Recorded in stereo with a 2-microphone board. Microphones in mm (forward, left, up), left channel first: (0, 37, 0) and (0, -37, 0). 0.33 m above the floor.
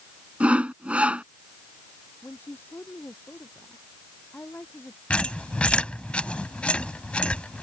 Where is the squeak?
15° left (ahead or behind).